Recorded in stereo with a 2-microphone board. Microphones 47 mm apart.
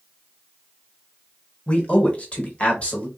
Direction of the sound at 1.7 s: 30° left (ahead or behind).